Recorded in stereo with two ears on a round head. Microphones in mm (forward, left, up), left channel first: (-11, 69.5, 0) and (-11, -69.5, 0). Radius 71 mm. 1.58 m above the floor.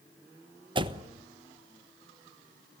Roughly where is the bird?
I don't hear a bird.